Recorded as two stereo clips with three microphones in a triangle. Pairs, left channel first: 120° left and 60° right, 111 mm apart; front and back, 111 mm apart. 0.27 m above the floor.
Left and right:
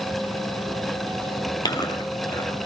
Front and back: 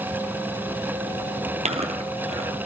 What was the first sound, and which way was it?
Chewing, 175° left.